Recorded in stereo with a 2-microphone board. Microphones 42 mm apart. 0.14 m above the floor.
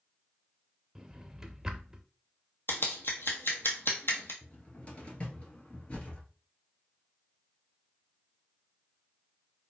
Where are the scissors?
65° left (ahead or behind), 1.2 m.